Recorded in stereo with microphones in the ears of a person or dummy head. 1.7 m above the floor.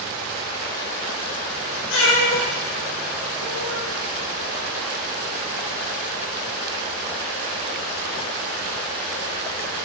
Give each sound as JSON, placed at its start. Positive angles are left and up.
{"t": 1.9, "sound": "a cat meowing", "side_deg": 60, "distance_m": 3.0}